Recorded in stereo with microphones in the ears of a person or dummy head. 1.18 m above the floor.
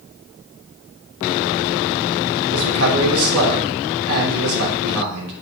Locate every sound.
2.5 s a man speaking: 80° right, 3 m